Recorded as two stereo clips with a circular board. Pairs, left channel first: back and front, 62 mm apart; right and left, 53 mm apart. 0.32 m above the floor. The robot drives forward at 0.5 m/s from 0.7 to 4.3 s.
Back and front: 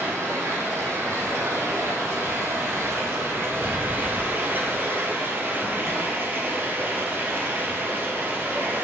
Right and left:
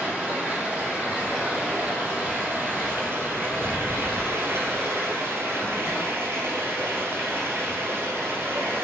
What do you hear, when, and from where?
0.0 s running water: 30° left, 3.5 m; by 8.8 s 55° left, 2.5 m